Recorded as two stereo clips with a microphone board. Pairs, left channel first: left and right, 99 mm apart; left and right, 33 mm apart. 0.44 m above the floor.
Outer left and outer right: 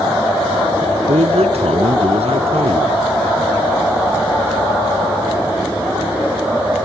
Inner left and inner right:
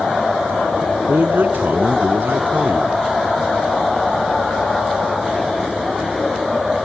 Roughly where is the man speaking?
Right.